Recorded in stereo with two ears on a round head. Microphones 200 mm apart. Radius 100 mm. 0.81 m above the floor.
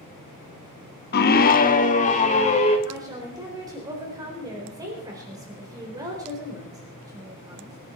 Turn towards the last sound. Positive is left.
turn(degrees=-15)  # may be behind; listen again after turning